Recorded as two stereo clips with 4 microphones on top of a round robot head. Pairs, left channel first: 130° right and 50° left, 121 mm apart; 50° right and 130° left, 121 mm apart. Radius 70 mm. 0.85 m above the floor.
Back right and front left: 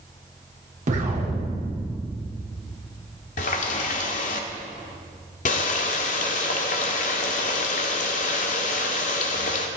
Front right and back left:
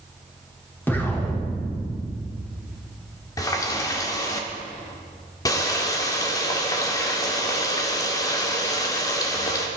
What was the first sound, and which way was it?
An explosion, 25° left.